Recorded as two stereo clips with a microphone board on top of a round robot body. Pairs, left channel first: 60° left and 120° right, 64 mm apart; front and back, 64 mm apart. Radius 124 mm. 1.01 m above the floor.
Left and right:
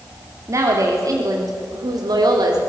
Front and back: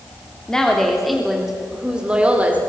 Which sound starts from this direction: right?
A woman speaking, at 0.5 s.